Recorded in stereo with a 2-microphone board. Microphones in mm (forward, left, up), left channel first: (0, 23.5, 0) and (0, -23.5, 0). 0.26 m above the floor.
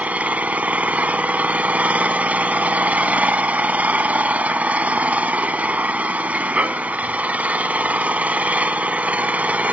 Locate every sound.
0.0 s an engine running: 35° right (ahead or behind), 0.7 m